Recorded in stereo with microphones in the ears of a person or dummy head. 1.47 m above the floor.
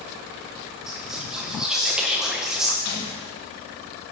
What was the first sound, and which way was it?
Whispering, centre (ahead or behind).